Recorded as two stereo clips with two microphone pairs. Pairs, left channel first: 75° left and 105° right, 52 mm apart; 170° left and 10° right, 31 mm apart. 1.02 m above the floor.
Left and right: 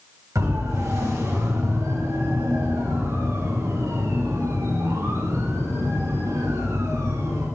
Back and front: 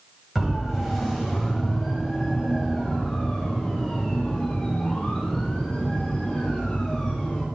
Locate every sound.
0.3 s a siren: 90° right, 9 m; by 7.4 s 115° right, 15.5 m